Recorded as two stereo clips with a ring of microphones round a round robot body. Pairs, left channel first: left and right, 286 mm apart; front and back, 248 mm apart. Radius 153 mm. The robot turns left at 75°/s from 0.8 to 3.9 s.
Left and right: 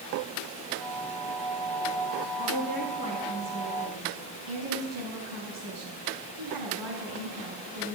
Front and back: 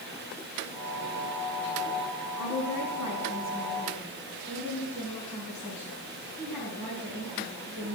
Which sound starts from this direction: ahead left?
A woman speaking, at 2.4 s.